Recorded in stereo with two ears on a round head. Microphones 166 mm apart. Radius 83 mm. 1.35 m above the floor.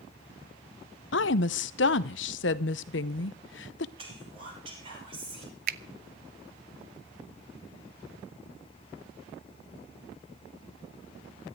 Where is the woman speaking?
70° left (ahead or behind), 0.9 m.